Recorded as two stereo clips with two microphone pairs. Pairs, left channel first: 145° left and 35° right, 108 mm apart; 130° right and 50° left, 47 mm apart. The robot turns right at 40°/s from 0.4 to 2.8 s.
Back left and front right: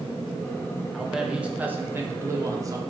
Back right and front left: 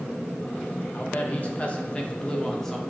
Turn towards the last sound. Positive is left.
turn(degrees=-45)